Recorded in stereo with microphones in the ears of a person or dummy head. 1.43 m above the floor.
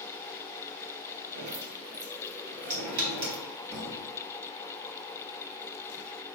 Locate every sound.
1.4 s dripping: 65° right (ahead or behind), 3 m
3.7 s a thud: 65° right (ahead or behind), 2.5 m